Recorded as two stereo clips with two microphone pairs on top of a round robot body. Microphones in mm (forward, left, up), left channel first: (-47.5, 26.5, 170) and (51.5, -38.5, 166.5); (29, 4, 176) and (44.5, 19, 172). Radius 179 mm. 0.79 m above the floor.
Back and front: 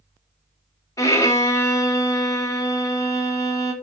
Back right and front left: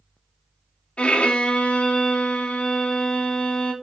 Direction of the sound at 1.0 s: 150° right.